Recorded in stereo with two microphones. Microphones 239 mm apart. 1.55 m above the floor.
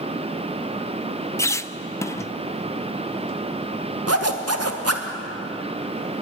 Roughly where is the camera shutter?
I don't hear a camera shutter.